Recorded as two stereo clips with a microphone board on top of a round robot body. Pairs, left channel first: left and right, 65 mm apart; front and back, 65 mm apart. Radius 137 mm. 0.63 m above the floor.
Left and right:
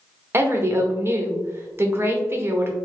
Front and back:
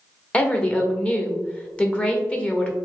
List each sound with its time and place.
0.3 s a woman speaking: 65° right, 1.1 m